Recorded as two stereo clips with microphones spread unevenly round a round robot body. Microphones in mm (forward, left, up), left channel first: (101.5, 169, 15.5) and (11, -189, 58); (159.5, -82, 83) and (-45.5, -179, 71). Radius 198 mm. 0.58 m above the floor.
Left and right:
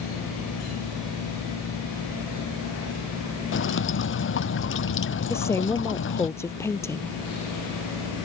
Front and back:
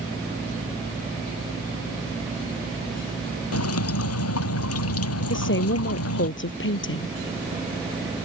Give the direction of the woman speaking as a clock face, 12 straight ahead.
12 o'clock.